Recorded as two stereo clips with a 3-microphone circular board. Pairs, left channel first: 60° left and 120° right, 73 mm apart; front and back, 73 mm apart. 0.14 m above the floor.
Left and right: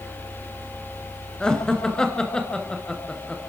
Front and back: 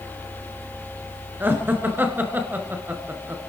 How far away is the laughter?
About 2 m.